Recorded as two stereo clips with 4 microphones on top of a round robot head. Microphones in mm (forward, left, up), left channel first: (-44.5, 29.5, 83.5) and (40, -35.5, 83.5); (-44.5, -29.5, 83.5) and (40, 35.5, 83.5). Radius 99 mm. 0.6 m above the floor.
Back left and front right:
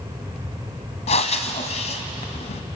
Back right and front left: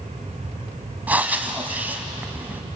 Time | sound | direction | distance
1.1 | breathing | 115° left | 1.4 m